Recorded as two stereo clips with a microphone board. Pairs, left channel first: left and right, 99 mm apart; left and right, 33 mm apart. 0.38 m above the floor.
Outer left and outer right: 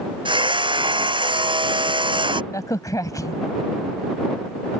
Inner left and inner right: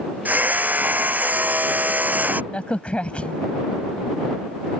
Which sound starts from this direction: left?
A crack, at 2.5 s.